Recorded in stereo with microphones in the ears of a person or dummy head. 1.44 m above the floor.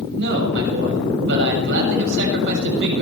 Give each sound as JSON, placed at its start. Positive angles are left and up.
{"t": 0.2, "sound": "a man speaking", "side_deg": -60, "distance_m": 6.5}